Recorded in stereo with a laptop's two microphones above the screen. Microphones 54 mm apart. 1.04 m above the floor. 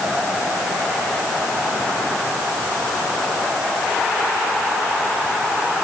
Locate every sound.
Only background noise.